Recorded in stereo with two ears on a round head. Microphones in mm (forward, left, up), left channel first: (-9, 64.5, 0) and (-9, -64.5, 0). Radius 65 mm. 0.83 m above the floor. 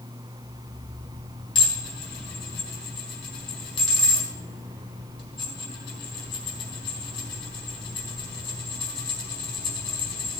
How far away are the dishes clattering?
About 4.5 m.